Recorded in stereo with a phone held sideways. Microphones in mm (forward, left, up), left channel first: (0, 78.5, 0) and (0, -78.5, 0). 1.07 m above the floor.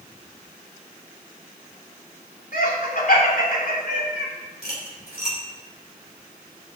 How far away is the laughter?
About 2.5 m.